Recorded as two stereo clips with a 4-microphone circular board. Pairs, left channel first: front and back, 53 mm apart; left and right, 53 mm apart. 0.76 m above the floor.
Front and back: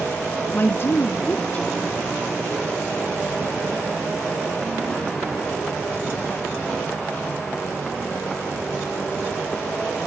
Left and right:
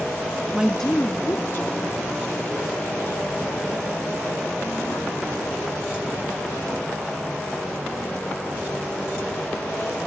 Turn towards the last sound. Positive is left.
turn(degrees=75)